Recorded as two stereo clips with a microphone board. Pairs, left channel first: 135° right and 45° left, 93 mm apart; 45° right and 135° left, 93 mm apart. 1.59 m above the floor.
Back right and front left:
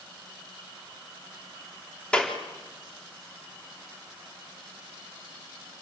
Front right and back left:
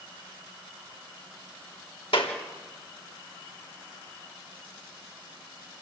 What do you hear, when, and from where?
2.1 s a clap: 55° right, 3.5 m